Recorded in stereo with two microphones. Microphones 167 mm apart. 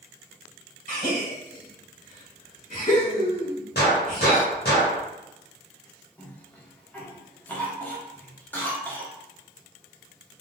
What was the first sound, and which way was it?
A gasp, 55° left (ahead or behind).